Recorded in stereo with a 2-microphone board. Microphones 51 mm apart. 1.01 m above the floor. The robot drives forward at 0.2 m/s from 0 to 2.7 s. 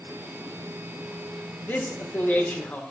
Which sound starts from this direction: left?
A man speaking, at 1.6 s.